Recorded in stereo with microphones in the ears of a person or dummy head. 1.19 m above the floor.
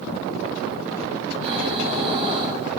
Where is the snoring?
30° right (ahead or behind), 1.2 m.